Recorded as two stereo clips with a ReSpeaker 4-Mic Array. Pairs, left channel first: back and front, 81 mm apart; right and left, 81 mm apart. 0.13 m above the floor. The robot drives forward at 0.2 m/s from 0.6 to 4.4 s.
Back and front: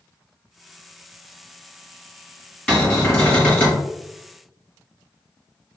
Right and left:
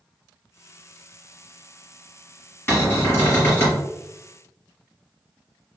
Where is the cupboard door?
120° right, 1.7 m; by 3.8 s 130° right, 1.8 m.